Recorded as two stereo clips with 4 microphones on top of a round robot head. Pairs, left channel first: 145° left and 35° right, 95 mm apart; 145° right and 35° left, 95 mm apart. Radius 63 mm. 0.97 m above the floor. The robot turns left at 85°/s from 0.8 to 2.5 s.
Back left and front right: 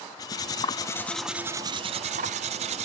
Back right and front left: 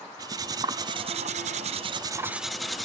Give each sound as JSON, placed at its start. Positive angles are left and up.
{"t": 0.2, "sound": "cutlery clinking", "azimuth_deg": 90, "distance_m": 0.6}